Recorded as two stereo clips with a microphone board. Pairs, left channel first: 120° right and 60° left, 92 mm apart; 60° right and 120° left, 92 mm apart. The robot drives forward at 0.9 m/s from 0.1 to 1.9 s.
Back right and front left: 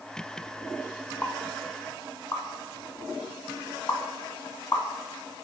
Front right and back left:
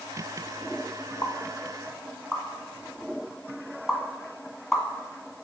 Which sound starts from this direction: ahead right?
A pop, at 1.2 s.